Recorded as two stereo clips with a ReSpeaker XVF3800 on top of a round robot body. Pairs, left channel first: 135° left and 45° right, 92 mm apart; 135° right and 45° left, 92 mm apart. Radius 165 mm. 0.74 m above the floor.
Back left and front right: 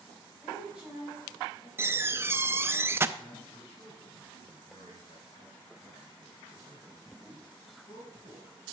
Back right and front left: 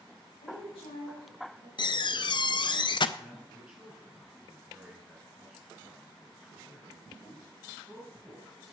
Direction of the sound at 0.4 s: 125° right.